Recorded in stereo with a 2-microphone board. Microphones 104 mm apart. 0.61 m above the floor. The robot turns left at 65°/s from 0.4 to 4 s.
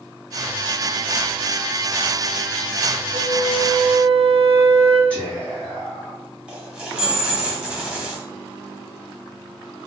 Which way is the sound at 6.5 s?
10° right (ahead or behind).